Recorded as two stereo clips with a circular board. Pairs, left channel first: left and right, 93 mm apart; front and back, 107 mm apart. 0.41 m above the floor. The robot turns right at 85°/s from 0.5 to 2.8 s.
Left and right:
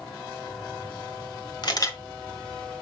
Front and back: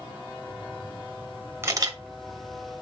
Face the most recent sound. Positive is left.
turn(degrees=-145)